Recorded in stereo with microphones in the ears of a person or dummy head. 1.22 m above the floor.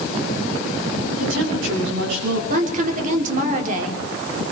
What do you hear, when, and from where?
1.1 s a woman speaking: 75° right (ahead or behind), 8.5 m
2.5 s a woman speaking: 45° right (ahead or behind), 4 m